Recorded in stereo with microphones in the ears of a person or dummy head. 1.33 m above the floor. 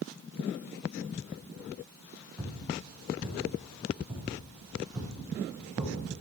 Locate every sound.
2.4 s footsteps: 5° right (ahead or behind), 3 m; by 6.2 s 20° right (ahead or behind), 5 m